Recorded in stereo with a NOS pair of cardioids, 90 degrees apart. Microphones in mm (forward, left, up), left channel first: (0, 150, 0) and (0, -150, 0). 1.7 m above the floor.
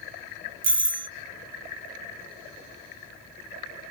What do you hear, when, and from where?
0.6 s a doorbell: 40° right, 0.6 m